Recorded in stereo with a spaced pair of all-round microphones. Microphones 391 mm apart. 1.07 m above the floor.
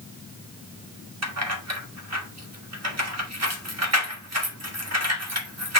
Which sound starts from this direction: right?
Keys jangling, at 1.2 s.